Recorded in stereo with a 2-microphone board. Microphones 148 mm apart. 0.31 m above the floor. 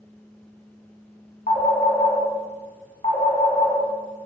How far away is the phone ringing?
About 0.8 m.